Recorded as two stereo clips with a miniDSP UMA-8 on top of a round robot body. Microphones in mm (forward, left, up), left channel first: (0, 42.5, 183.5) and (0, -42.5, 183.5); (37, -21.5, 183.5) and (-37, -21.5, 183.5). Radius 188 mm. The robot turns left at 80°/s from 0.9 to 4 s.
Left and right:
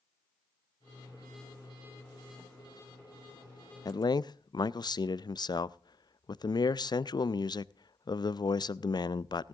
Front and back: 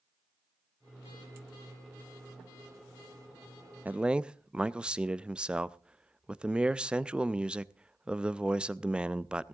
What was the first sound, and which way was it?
A man speaking, 115° left.